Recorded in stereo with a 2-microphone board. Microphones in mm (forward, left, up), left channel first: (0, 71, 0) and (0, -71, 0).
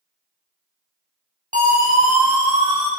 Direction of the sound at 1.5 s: 70° right (ahead or behind).